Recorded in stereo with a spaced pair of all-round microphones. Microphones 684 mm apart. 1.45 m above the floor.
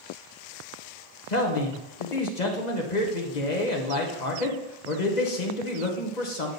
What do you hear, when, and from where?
1.3 s a man speaking: 80° left, 1.4 m